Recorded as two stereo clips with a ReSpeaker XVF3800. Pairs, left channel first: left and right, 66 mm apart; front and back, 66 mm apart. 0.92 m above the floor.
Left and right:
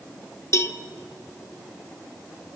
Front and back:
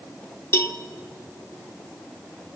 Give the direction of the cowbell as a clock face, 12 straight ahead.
11 o'clock.